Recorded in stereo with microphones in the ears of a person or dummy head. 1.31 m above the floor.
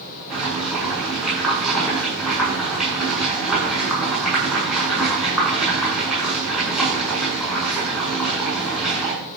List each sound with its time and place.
0.3 s boiling: centre (ahead or behind), 8 m